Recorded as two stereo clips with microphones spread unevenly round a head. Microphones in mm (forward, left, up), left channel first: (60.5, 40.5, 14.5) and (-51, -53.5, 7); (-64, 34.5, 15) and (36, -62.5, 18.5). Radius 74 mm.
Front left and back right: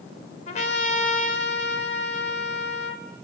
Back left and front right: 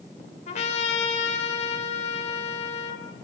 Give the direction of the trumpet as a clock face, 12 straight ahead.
9 o'clock.